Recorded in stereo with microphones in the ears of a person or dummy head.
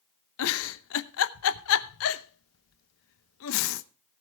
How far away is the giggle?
About 0.8 m.